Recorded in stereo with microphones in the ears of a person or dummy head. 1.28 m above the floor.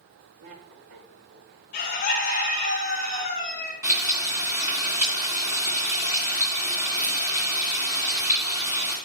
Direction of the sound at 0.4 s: 85° right.